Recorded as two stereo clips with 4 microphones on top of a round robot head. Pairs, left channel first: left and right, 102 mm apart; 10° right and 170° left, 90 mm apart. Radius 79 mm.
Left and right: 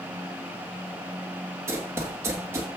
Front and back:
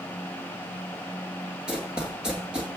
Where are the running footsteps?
115° right, 1.0 m.